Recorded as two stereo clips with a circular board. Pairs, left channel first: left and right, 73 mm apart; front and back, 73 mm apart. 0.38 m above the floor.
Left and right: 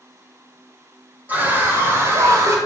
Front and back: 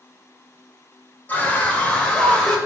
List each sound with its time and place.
1.3 s a scream: 45° right, 1.5 m; by 2.6 s 75° right, 1.9 m